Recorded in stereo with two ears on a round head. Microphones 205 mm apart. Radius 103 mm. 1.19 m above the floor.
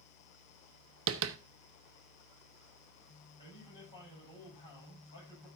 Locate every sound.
1.1 s tapping: 55° right (ahead or behind), 0.8 m
3.4 s a man speaking: 20° left (ahead or behind), 8 m